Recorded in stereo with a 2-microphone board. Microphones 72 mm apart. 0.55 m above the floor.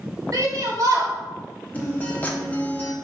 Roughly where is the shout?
Right.